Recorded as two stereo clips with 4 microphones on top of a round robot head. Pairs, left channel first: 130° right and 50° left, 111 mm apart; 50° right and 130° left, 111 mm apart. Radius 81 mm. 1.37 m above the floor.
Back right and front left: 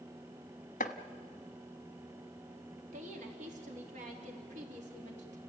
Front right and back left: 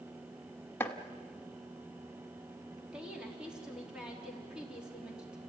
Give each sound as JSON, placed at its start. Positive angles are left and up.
{"t": 0.8, "sound": "chopping", "azimuth_deg": -125, "distance_m": 0.9}
{"t": 2.9, "sound": "a woman speaking", "azimuth_deg": 45, "distance_m": 3.5}